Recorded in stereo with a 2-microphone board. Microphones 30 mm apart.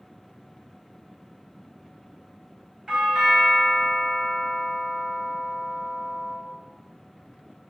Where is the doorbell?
30° right (ahead or behind), 2 m.